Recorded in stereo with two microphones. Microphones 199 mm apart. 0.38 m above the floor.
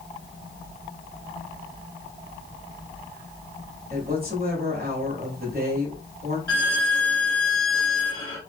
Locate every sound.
3.9 s a woman speaking: 50° right (ahead or behind), 1.5 m
6.5 s a violin: 85° right, 1.2 m